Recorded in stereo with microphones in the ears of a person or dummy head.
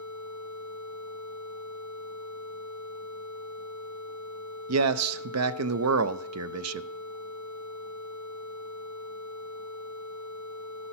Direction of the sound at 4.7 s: 85° right.